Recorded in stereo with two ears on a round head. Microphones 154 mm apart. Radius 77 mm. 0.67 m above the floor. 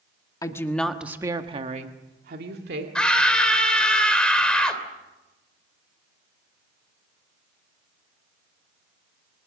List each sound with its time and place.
0.4 s a woman speaking: 20° left (ahead or behind), 1.6 m; by 2.9 s 65° right (ahead or behind), 2.5 m
3.0 s a scream: 5° left (ahead or behind), 3 m